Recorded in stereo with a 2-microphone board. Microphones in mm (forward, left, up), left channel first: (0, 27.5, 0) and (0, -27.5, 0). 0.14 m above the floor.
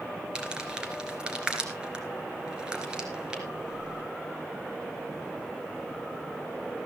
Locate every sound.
0.3 s crumpling: 15° right (ahead or behind), 3 m